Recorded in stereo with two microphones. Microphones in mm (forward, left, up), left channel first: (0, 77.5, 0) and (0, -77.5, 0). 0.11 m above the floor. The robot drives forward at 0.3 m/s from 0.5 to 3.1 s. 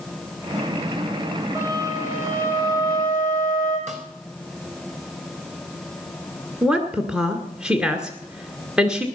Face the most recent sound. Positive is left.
turn(degrees=-5)  # may be behind; listen again after turning